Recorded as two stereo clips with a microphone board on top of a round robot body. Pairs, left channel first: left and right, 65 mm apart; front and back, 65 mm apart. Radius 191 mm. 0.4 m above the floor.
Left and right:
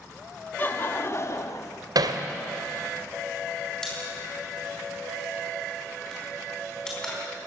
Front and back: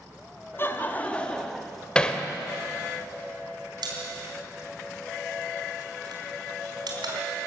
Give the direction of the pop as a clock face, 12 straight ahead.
6 o'clock.